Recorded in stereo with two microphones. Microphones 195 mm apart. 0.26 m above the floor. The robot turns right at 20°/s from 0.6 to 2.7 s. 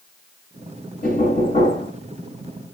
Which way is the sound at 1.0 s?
45° left (ahead or behind).